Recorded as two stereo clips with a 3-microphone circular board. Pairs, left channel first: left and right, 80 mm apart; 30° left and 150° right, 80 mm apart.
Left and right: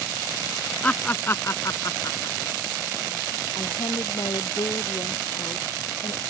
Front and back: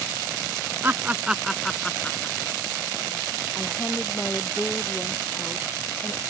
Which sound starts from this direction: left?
A woman speaking, at 3.5 s.